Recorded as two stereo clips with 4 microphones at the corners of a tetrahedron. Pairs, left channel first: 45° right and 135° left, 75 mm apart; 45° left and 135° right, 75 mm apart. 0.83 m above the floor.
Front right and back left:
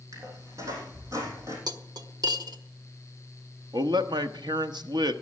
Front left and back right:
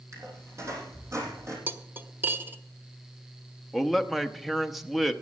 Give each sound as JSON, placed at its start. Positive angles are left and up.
{"t": 0.1, "sound": "a squeak", "azimuth_deg": 180, "distance_m": 3.5}
{"t": 1.7, "sound": "cutlery clinking", "azimuth_deg": 165, "distance_m": 0.9}
{"t": 3.7, "sound": "a man speaking", "azimuth_deg": 140, "distance_m": 1.0}